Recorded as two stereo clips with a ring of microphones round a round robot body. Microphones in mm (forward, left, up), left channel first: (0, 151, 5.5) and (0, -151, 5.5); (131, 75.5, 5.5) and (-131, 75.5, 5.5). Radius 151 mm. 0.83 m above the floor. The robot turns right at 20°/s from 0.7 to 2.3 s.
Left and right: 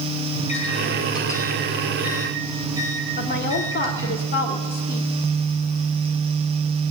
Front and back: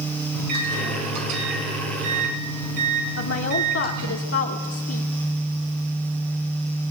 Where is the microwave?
160° left, 5.5 m; by 4.2 s 170° right, 5.5 m.